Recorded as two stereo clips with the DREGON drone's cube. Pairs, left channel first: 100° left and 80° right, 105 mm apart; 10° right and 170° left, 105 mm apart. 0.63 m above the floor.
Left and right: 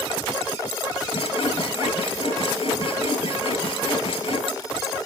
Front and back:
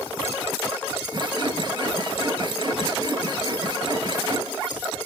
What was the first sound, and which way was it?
Sawing, 130° left.